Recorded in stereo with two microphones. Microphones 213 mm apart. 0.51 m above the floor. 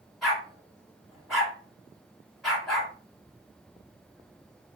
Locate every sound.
0.2 s a dog barking: centre (ahead or behind), 1.3 m